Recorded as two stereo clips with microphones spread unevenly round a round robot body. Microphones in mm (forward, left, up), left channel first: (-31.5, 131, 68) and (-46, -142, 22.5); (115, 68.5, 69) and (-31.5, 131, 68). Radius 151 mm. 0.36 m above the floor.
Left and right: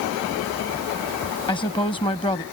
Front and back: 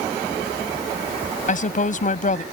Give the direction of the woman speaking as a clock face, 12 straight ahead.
12 o'clock.